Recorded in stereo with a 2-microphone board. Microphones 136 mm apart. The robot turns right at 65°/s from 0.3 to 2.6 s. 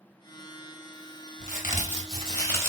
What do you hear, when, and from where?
1.4 s a crack: 85° left, 0.9 m; by 2.7 s 160° left, 0.9 m